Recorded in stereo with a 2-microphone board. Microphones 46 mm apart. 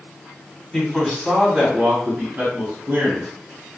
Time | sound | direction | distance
0.7 | a man speaking | 15° left (ahead or behind) | 1.2 m